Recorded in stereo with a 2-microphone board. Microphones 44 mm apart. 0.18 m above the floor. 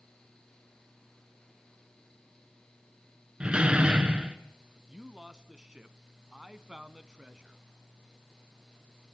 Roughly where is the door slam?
Right.